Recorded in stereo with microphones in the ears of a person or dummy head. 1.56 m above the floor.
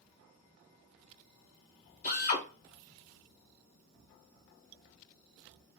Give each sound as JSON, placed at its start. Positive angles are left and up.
{"t": 2.0, "sound": "a drill", "side_deg": 45, "distance_m": 1.6}